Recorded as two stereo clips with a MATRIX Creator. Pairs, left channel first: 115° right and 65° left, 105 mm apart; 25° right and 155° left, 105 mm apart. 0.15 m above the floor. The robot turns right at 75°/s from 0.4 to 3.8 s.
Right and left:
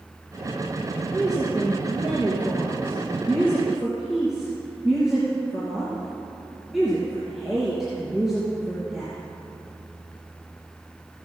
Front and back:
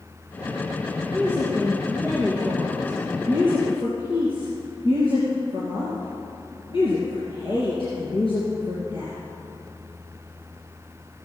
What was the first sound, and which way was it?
A woman speaking, 140° left.